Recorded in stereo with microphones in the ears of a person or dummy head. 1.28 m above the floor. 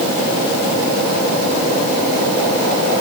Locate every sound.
Only background noise.